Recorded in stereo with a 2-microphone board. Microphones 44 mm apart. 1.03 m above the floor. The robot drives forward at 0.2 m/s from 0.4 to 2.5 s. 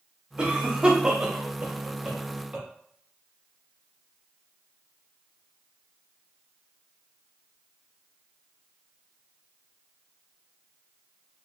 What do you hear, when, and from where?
0.4 s a cough: 20° right (ahead or behind), 0.7 m